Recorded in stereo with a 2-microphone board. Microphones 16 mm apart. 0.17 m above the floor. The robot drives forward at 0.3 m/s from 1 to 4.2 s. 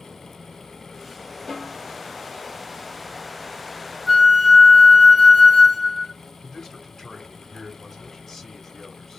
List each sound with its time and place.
1.5 s a snare drum: 40° left (ahead or behind), 1.3 m; by 1.9 s 35° left (ahead or behind), 1.4 m
4.1 s a flute: 5° left (ahead or behind), 0.7 m
6.4 s a man speaking: 25° left (ahead or behind), 1.6 m